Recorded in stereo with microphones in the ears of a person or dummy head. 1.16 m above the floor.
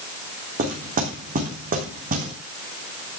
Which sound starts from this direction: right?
Knocking, at 0.6 s.